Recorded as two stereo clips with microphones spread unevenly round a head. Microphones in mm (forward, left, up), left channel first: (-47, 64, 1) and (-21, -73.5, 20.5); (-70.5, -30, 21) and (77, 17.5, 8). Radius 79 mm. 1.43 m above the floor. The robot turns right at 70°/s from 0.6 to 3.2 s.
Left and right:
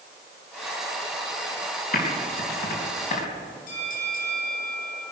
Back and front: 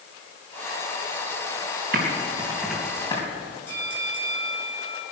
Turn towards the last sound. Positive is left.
turn(degrees=120)